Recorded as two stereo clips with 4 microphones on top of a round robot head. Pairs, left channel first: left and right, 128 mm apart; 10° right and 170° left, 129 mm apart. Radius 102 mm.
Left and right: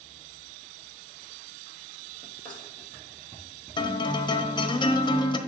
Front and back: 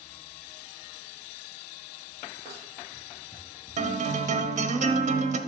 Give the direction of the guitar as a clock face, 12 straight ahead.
7 o'clock.